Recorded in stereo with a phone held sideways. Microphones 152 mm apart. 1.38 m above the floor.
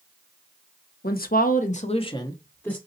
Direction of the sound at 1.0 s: 85° left.